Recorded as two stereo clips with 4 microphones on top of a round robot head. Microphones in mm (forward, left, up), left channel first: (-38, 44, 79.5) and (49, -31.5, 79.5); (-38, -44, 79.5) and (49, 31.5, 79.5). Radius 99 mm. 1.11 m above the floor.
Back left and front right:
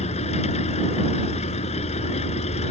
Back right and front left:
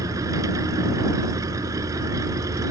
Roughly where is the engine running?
Left.